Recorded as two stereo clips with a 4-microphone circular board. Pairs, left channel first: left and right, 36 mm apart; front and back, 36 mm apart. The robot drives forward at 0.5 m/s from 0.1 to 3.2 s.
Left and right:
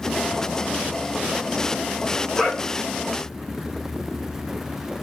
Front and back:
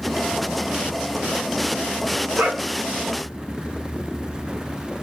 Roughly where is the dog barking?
Behind.